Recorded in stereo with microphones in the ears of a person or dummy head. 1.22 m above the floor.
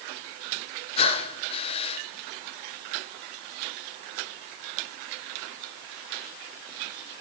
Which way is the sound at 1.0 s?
30° left (ahead or behind).